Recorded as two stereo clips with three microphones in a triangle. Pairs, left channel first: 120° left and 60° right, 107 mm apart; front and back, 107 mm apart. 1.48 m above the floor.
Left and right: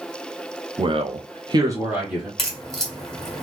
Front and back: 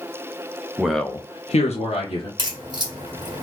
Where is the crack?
155° right, 1.5 m.